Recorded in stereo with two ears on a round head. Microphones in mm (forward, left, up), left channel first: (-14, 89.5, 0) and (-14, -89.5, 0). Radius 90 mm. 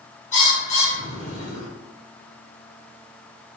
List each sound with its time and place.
0.3 s a bird: 35° left (ahead or behind), 1.6 m